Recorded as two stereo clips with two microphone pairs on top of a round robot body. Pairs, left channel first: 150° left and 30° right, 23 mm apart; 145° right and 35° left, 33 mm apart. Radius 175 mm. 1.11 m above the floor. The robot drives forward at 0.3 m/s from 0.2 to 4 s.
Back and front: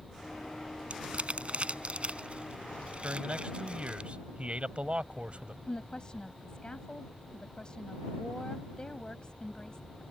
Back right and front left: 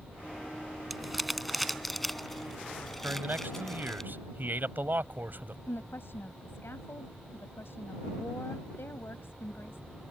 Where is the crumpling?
55° right; by 4.0 s 65° right.